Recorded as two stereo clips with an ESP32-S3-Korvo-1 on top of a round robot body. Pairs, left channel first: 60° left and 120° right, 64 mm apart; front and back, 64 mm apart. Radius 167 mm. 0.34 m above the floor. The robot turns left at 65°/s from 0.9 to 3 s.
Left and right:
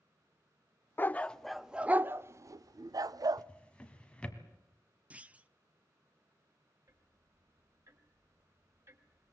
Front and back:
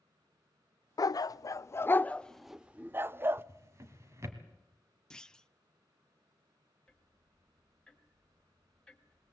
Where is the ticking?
80° right, 2.0 m.